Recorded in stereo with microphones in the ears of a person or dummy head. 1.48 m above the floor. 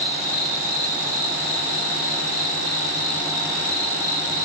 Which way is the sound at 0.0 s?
40° right (ahead or behind).